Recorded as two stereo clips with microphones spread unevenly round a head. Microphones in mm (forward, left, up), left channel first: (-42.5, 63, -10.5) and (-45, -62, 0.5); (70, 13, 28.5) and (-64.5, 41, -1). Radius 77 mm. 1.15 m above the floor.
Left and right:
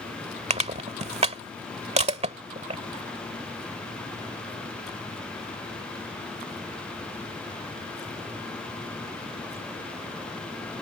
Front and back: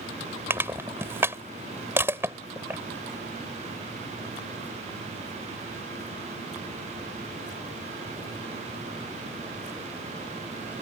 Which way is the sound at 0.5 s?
110° right.